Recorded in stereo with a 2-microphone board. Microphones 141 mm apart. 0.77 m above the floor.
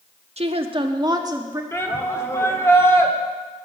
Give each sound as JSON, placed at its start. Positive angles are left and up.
{"t": 0.4, "sound": "a woman speaking", "side_deg": -50, "distance_m": 1.0}
{"t": 1.7, "sound": "a shout", "side_deg": 20, "distance_m": 1.8}